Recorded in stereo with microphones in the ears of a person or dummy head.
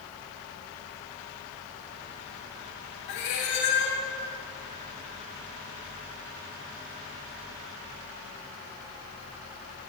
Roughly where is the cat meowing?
Left.